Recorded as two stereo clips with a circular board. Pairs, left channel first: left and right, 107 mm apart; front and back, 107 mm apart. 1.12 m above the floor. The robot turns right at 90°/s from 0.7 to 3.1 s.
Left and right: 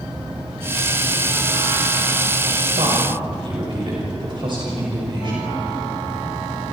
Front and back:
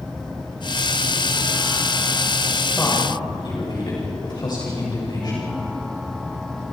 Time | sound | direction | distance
2.8 | a woman speaking | 80° right | 6.5 m